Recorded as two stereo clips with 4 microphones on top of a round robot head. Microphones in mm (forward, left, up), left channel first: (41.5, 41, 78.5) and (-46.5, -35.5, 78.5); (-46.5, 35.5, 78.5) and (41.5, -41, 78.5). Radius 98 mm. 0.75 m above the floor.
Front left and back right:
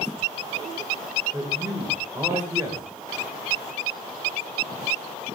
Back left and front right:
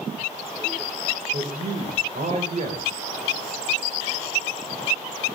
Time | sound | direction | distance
1.3 | a man speaking | 75° right | 4 m